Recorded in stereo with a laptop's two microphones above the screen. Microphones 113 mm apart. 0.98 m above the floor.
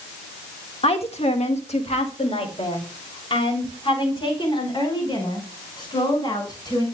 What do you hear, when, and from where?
0.8 s a woman speaking: 60° left (ahead or behind), 1.6 m; by 6.8 s 40° left (ahead or behind), 6 m